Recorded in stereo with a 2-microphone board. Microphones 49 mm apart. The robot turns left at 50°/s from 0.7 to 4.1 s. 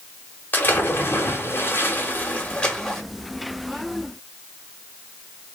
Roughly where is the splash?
Behind left.